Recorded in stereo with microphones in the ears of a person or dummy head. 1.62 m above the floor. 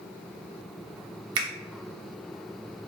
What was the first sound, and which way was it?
A finger snap, 30° right (ahead or behind).